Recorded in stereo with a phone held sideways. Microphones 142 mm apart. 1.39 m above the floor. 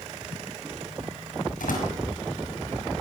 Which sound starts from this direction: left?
A door slam, at 1.6 s.